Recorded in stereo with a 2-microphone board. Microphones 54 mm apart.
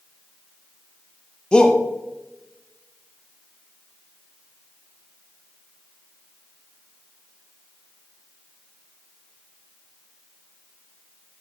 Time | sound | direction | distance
1.5 | a shout | 20° left (ahead or behind) | 0.9 m